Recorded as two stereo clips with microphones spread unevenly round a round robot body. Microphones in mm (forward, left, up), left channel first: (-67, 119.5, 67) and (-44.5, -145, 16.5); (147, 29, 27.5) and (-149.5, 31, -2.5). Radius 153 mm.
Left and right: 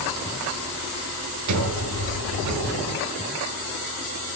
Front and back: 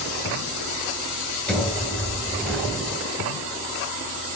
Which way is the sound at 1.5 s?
90° right.